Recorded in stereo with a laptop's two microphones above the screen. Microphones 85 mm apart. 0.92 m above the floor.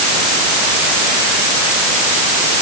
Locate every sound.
Only background noise.